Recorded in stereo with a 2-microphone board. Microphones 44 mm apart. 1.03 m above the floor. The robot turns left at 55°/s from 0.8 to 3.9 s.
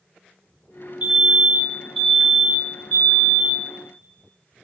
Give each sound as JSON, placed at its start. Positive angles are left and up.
{"t": 1.0, "sound": "a fire alarm", "azimuth_deg": -130, "distance_m": 1.9}